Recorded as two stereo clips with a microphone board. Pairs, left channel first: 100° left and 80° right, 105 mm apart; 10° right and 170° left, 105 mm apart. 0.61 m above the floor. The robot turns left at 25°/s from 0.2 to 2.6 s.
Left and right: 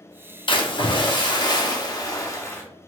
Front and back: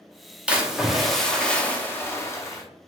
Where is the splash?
95° left, 0.6 m; by 2.6 s 40° left, 0.6 m.